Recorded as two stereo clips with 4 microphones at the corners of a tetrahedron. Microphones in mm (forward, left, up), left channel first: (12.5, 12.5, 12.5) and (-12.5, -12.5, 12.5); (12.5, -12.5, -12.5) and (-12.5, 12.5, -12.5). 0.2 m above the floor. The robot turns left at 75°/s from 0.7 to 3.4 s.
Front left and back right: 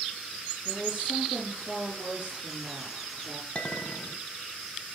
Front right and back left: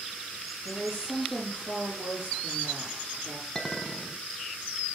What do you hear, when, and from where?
0.7 s a woman speaking: 65° right, 4 m; by 3.5 s 95° left, 4 m
3.5 s a clink: 30° left, 0.9 m